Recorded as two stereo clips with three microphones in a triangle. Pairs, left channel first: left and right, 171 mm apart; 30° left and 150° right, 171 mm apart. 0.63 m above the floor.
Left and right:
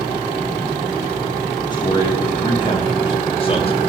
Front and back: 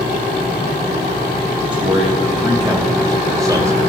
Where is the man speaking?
150° left, 3.5 m; by 3.8 s 140° left, 2.5 m.